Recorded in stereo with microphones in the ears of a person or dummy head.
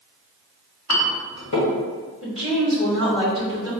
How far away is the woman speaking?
About 1.1 m.